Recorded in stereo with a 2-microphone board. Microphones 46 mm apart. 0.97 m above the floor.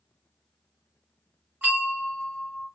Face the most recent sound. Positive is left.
turn(degrees=-30)  # may be behind; listen again after turning